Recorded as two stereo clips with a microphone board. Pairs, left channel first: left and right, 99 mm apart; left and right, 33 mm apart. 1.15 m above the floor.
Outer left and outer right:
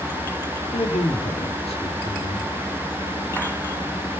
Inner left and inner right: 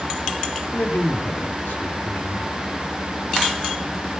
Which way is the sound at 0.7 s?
85° left.